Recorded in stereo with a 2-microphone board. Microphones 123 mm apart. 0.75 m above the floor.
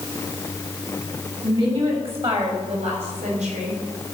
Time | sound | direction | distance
1.4 | a woman speaking | 50° right (ahead or behind) | 5 m